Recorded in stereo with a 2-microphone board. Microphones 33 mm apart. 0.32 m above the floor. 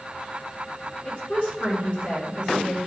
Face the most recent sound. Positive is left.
turn(degrees=65)  # may be behind; listen again after turning